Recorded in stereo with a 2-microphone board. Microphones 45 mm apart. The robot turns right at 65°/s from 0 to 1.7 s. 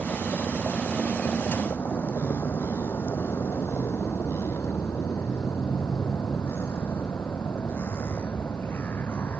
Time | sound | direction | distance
0.0 | a vehicle | 70° right (ahead or behind) | ?